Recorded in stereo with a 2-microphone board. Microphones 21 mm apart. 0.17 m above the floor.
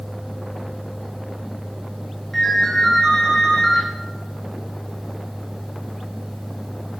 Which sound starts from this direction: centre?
A ringtone, at 2.3 s.